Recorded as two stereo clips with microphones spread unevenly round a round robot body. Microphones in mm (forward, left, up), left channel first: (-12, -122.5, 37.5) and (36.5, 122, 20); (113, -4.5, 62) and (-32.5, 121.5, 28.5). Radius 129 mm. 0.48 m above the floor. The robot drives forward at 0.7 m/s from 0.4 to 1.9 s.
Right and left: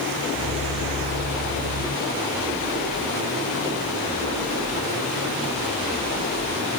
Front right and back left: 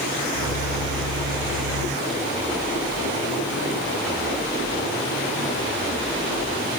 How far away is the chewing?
No chewing in this recording.